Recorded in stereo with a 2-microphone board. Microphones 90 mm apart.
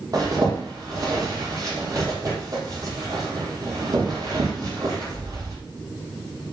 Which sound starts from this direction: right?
A zipper, at 0.1 s.